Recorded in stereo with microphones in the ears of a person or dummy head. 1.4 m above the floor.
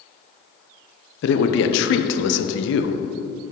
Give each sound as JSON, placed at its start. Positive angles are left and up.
{"t": 1.2, "sound": "a man speaking", "side_deg": 65, "distance_m": 0.9}